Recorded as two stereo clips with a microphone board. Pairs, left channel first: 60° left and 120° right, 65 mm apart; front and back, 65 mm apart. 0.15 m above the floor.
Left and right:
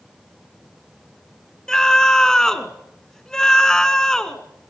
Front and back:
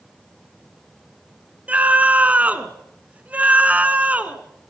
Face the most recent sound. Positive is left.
turn(degrees=135)